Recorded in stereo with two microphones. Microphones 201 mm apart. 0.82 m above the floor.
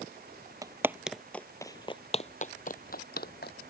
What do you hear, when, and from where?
0.6 s footsteps: 20° right (ahead or behind); by 3.5 s 60° left (ahead or behind)